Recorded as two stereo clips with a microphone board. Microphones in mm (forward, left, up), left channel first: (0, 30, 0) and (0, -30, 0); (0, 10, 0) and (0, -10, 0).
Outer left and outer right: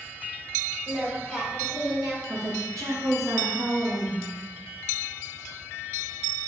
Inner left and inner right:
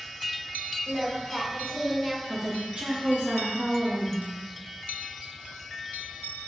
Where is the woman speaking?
80° right, 1.0 m.